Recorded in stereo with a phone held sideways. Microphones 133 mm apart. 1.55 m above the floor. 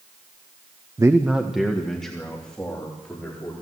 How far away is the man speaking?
About 0.6 m.